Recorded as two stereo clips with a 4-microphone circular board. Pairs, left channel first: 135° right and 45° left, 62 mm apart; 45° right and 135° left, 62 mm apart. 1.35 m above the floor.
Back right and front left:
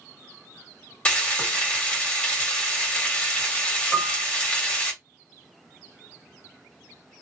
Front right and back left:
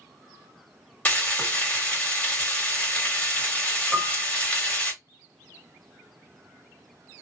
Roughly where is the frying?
Right.